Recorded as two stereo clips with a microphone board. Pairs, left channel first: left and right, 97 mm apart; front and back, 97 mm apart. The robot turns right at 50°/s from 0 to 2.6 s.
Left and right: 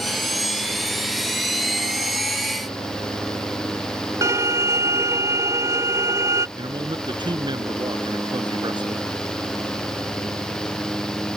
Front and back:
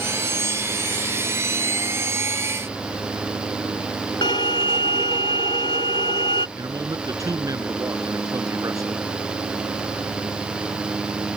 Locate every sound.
4.2 s a violin: 30° right
6.6 s a man speaking: 130° right